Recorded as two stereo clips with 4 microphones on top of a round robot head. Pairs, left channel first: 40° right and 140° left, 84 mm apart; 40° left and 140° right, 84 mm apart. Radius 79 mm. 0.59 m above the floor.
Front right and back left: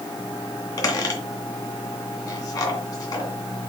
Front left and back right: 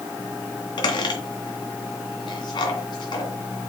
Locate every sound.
0.8 s a squeak: 5° left, 2.5 m